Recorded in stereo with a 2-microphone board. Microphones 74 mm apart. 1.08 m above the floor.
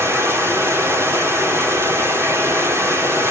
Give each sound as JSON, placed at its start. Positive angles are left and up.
{"t": 0.0, "sound": "running water", "side_deg": -35, "distance_m": 3.0}